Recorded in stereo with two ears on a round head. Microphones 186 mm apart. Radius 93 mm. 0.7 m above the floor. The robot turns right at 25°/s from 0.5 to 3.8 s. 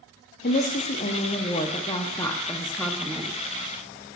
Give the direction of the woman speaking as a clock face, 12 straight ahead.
8 o'clock.